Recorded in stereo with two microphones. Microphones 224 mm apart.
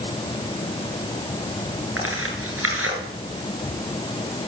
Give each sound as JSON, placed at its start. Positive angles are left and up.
{"t": 2.0, "sound": "tearing paper", "side_deg": -75, "distance_m": 8.5}